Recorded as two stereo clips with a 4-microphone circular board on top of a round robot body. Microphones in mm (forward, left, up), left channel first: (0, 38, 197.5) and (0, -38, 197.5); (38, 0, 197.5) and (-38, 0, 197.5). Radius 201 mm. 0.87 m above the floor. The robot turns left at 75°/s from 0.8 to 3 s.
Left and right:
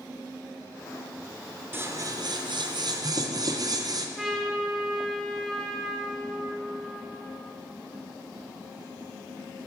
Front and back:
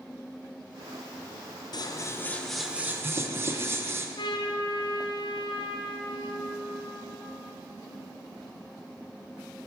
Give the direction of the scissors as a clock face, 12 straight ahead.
1 o'clock.